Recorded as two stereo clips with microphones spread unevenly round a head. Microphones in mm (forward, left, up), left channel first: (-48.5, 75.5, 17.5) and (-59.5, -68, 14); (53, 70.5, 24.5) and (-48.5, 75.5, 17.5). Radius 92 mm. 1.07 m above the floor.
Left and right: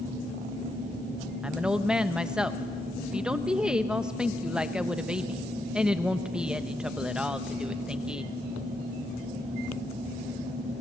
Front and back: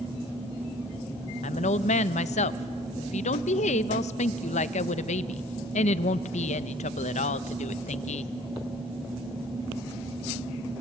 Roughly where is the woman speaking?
Ahead.